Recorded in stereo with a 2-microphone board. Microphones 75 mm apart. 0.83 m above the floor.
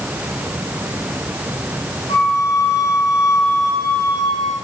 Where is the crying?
No crying in this recording.